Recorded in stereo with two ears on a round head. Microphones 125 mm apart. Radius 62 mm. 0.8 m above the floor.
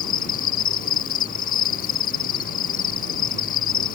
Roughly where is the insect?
Left.